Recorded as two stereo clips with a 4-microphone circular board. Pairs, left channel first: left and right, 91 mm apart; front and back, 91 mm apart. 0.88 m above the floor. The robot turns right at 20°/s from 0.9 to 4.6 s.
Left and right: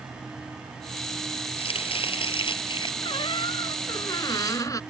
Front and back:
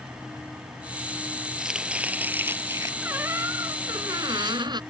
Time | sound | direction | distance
1.6 | chopping | 95° left | ?
3.0 | a squeak | 110° left | ?